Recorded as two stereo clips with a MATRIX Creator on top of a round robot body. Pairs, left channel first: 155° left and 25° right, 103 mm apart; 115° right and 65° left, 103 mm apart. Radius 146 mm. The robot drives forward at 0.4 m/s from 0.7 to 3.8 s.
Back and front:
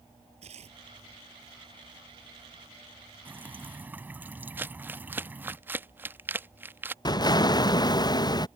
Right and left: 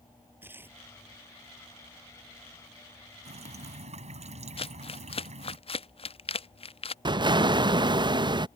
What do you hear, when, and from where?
0.4 s tearing paper: 5° right
3.2 s dripping: 50° left
4.6 s crumpling: 95° right
7.0 s an explosion: 110° left